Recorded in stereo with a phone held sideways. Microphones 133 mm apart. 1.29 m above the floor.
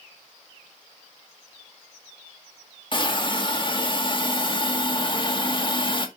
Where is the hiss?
35° left (ahead or behind), 2 m.